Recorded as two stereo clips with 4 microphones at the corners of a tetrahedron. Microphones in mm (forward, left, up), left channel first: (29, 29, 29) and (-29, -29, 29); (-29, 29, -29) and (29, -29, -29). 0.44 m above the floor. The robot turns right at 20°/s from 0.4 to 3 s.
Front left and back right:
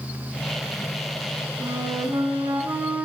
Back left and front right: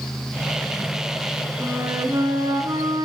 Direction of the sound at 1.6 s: 105° right.